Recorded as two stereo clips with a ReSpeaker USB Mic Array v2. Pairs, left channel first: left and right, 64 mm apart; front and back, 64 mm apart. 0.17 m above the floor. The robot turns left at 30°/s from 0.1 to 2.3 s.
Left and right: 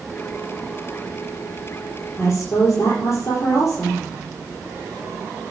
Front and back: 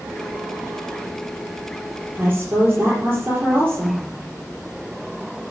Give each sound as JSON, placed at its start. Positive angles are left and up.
{"t": 2.2, "sound": "a woman speaking", "azimuth_deg": 125, "distance_m": 4.5}